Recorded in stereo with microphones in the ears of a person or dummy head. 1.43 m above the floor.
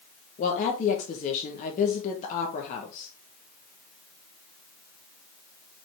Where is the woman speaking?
40° left (ahead or behind), 1.3 m.